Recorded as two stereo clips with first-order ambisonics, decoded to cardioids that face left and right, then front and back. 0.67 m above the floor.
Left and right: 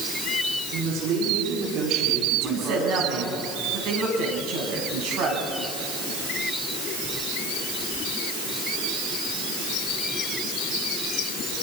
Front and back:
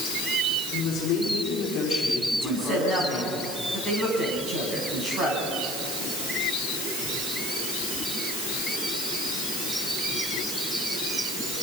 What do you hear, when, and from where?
0.7 s a woman speaking: 55° right, 6 m
2.3 s a woman speaking: 120° right, 6 m